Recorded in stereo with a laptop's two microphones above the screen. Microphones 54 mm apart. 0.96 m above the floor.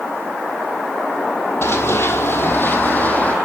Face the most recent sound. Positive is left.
turn(degrees=25)  # may be behind; listen again after turning